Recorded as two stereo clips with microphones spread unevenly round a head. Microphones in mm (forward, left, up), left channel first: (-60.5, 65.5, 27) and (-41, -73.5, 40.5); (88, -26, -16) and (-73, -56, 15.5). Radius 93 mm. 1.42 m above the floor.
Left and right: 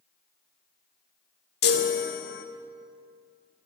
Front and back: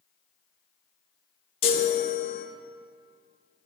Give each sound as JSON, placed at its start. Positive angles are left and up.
{"t": 1.6, "sound": "a chime", "azimuth_deg": 75, "distance_m": 1.0}